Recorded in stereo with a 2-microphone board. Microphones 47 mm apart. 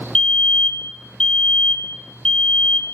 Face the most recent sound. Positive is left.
turn(degrees=20)  # may be behind; listen again after turning